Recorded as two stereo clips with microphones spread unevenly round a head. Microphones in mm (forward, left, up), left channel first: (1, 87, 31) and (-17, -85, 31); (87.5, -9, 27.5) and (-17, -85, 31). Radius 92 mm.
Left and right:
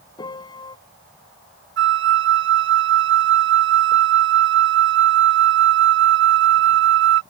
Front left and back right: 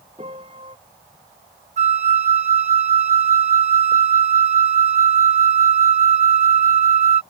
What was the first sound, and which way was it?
A piano, 150° left.